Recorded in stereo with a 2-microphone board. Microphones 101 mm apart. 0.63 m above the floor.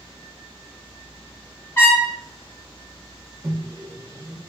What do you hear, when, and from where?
1.8 s a trumpet: 25° left (ahead or behind), 1.9 m
3.4 s a microwave: 30° right (ahead or behind), 0.5 m